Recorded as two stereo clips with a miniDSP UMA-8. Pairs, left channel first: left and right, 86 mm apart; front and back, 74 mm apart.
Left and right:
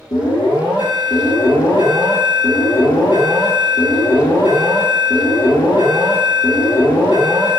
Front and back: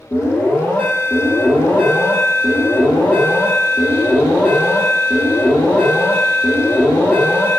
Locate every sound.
0.1 s an alarm: 65° left, 3 m